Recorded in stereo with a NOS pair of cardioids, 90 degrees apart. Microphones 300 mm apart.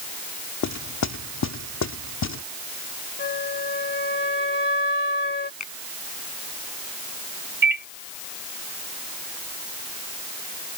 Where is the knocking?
60° left.